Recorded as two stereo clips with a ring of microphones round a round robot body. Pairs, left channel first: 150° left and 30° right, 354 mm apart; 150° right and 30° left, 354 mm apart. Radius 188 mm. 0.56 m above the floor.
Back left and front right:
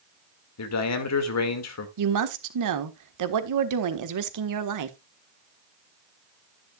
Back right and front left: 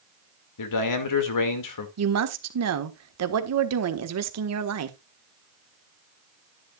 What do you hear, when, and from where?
0.6 s a man speaking: 175° right, 2 m
2.0 s a woman speaking: 5° right, 1.5 m